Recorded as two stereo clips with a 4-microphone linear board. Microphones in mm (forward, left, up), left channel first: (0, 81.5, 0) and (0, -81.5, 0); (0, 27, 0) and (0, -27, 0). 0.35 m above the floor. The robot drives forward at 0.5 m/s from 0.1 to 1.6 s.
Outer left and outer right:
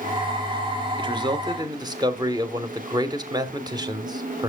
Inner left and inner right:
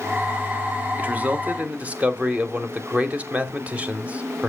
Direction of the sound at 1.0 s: 30° right (ahead or behind).